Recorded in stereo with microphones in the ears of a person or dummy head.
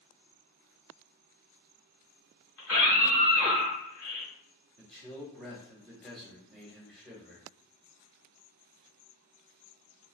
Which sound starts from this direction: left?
A scream, at 2.6 s.